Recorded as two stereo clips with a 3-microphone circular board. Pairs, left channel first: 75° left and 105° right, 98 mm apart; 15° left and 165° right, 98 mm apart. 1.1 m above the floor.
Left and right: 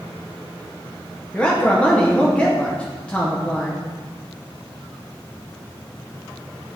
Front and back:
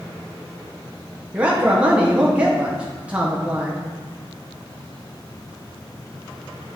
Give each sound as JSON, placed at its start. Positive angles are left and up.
{"t": 1.3, "sound": "a man speaking", "azimuth_deg": 135, "distance_m": 0.8}